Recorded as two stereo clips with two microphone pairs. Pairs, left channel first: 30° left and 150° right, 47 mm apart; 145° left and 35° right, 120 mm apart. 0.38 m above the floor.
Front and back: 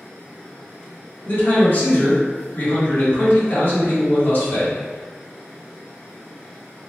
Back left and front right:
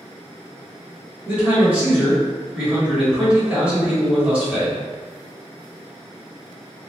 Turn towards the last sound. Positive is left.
turn(degrees=40)